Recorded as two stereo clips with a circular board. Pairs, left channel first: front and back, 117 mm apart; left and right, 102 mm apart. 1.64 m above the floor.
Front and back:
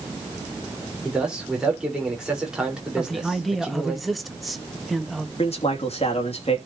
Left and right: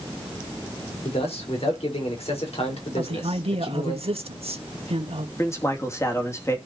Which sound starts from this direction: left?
A man speaking, at 1.1 s.